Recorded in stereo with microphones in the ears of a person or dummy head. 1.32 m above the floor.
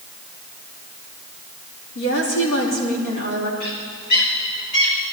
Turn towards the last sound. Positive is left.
turn(degrees=55)  # may be behind; listen again after turning